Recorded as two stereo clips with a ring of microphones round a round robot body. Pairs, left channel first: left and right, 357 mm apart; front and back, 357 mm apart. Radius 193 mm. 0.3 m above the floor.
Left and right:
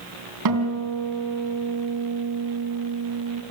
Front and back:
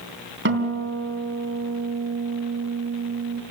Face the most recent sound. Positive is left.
turn(degrees=-125)